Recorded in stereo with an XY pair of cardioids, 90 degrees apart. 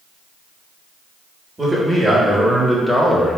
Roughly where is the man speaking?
Ahead.